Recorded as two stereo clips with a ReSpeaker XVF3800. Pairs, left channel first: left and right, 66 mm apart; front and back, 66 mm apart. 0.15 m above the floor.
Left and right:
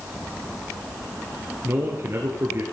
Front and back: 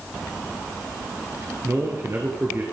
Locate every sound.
1.6 s a man speaking: 135° right, 2.5 m